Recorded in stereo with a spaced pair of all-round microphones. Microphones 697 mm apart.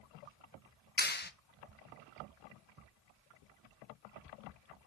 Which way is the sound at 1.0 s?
15° left (ahead or behind).